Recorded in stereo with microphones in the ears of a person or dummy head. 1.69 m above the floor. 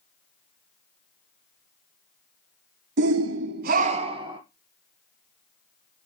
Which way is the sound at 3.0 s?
60° right (ahead or behind).